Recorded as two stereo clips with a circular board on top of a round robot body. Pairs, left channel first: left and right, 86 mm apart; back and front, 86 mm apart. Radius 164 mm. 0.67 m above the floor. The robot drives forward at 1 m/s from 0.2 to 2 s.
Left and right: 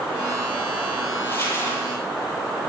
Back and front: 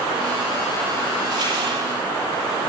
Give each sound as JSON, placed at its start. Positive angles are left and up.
{"t": 1.2, "sound": "crumpling", "azimuth_deg": 35, "distance_m": 8.5}